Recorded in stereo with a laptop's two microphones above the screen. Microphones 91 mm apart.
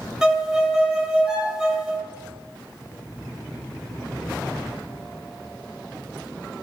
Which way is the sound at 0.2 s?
5° right (ahead or behind).